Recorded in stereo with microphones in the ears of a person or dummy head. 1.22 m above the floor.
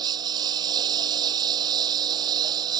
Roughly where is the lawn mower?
Right.